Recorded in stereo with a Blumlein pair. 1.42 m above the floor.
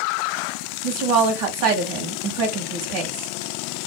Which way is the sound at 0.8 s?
40° right.